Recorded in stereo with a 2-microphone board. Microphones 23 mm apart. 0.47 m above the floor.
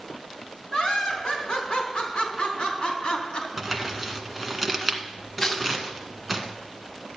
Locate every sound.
0.7 s laughter: 40° left (ahead or behind), 4.5 m; by 3.5 s 45° left (ahead or behind), 3 m
3.6 s crumpling: 10° right (ahead or behind), 1.6 m
5.4 s tearing paper: 25° left (ahead or behind), 1.4 m